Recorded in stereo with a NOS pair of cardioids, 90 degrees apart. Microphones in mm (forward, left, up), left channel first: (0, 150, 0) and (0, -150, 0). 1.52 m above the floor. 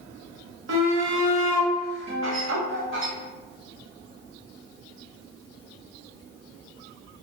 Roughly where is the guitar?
Ahead right.